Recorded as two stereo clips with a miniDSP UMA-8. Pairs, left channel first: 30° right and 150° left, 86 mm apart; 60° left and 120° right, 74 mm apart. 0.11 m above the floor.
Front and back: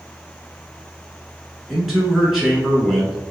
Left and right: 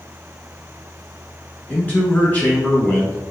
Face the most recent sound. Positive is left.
turn(degrees=65)